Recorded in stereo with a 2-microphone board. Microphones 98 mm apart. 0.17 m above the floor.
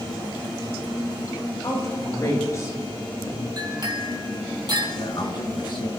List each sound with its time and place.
1.6 s a woman speaking: 35° left (ahead or behind), 5 m
3.6 s a clink: 45° right (ahead or behind), 3.5 m
5.0 s a man speaking: 55° left (ahead or behind), 1.9 m